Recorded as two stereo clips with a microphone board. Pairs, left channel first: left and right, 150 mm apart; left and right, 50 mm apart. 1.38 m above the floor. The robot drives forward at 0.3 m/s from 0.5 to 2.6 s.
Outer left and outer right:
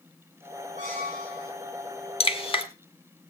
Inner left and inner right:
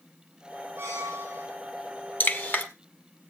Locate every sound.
0.8 s a squeak: 55° right (ahead or behind), 6.5 m; by 1.5 s 50° right (ahead or behind), 6.5 m
2.2 s dripping: 40° left (ahead or behind), 1.5 m; by 2.6 s 35° left (ahead or behind), 1.6 m